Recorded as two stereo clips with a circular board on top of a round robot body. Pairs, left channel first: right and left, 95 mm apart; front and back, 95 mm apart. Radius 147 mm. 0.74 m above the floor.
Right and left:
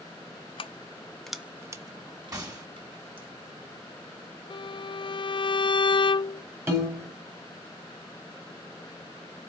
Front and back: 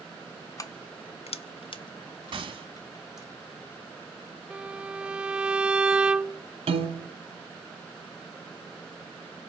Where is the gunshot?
145° left, 2.5 m.